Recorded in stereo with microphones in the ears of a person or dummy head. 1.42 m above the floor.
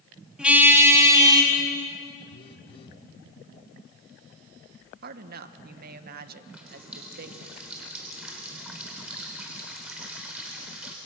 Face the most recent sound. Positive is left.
turn(degrees=-5)  # may be behind; listen again after turning